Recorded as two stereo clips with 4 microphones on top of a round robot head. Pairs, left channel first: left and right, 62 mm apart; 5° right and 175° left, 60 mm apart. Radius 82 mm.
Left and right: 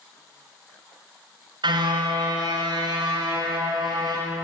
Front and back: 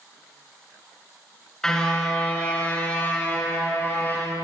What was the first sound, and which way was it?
A car horn, 85° right.